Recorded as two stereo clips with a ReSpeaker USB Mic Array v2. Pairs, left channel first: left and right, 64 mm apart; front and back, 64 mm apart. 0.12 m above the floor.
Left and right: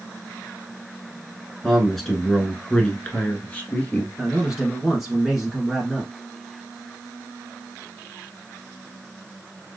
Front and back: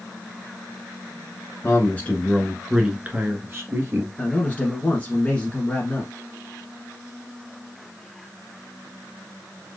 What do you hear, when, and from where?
1.6 s a man speaking: straight ahead, 1.3 m; by 4.1 s 150° left, 1.9 m
4.2 s a man speaking: 15° right, 1.1 m